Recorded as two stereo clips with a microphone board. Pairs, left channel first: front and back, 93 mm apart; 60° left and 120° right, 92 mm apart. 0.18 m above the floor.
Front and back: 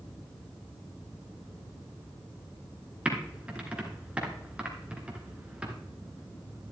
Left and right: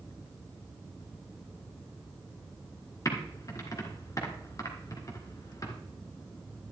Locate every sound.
3.0 s typing on a keyboard: 105° left, 1.8 m